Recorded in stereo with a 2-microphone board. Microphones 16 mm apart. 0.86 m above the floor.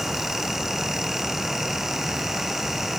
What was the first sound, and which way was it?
Only background noise.